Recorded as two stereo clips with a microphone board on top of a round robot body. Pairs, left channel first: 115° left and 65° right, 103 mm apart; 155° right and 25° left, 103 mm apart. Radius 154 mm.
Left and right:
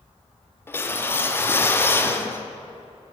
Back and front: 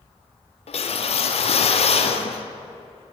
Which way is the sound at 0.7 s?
Straight behind.